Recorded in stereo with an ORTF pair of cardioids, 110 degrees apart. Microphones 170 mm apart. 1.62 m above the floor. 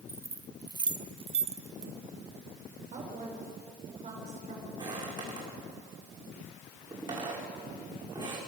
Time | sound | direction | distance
0.1 | keys jangling | 15° right | 1.6 m
2.9 | a woman speaking | 50° right | 7.5 m
4.8 | footsteps | 25° right | 7.5 m